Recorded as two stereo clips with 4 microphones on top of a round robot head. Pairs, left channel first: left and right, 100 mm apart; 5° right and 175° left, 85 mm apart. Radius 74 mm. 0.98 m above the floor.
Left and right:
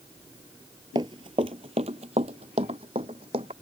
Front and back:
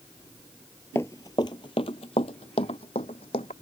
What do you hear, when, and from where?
0.9 s running footsteps: 60° right; by 3.5 s 40° right